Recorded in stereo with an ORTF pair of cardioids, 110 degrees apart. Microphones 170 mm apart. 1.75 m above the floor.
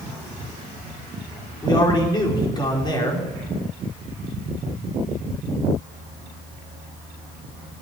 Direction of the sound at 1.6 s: 25° left.